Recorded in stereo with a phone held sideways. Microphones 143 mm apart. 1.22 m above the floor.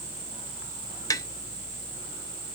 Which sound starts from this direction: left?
Tapping, at 1.1 s.